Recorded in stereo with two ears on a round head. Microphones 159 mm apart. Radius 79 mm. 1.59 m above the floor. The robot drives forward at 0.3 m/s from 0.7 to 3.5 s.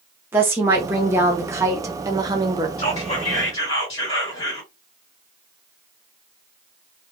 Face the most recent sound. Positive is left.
turn(degrees=30)  # may be behind; listen again after turning